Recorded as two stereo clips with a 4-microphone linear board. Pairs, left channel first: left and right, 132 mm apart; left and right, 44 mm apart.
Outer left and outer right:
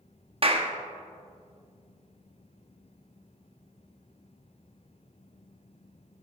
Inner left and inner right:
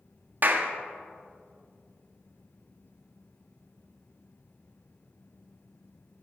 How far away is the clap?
About 0.8 m.